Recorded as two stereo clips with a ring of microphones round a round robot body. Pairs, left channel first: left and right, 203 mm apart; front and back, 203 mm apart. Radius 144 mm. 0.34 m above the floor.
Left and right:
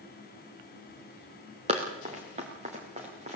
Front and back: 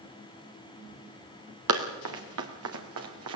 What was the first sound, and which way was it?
Running footsteps, 160° right.